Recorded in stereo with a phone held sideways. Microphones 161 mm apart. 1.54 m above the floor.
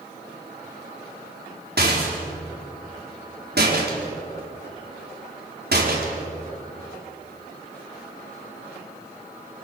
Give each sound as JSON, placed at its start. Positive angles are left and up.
{"t": 1.8, "sound": "a rattle", "side_deg": -80, "distance_m": 4.5}